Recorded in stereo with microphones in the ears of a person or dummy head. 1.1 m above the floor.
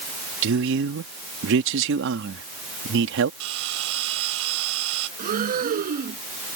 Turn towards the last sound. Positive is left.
turn(degrees=-40)  # may be behind; listen again after turning